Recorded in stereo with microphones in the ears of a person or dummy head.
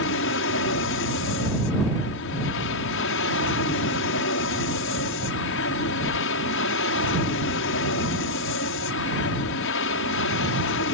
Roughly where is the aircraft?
Left.